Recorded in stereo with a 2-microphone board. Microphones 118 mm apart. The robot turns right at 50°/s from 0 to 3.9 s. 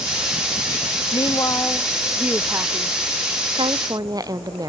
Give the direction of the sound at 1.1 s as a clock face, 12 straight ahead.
8 o'clock.